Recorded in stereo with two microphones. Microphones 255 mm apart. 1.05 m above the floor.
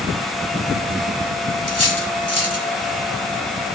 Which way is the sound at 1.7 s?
70° left (ahead or behind).